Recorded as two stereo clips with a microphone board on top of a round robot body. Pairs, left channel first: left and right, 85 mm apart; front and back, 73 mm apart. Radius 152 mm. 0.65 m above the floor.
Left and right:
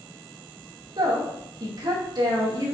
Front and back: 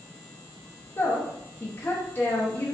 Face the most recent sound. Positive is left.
turn(degrees=-60)